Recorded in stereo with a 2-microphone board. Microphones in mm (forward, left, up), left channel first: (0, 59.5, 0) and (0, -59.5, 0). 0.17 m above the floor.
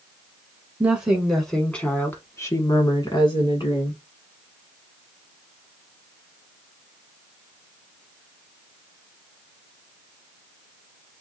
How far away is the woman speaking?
About 1.4 m.